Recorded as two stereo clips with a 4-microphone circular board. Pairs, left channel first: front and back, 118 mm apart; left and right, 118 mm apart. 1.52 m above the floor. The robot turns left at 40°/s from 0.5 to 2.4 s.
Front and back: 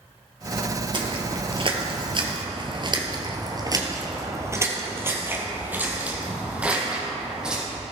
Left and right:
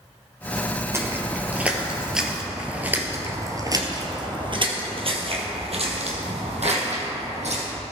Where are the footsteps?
150° right, 2.5 m; by 7.6 s 95° right, 4.5 m.